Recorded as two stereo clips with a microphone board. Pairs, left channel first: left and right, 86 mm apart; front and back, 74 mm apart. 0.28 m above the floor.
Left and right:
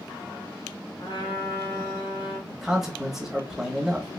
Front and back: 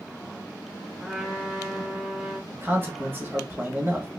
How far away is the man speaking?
About 1.2 m.